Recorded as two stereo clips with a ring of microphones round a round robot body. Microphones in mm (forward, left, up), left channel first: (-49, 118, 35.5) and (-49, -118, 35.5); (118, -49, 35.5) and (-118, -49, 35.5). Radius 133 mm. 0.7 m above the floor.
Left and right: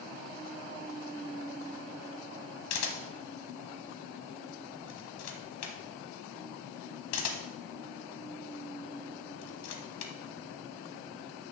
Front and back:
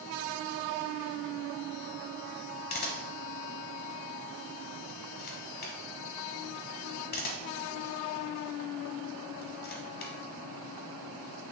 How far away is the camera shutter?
About 1.2 m.